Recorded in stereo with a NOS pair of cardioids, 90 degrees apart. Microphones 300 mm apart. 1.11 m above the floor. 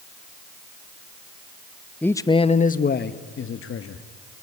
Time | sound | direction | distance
2.0 | a man speaking | 5° left | 0.9 m